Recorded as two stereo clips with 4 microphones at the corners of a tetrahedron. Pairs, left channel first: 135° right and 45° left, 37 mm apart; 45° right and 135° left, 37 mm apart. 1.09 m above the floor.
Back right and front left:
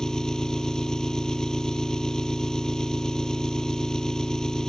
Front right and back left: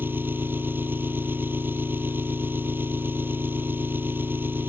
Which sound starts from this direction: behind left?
An engine running, at 0.0 s.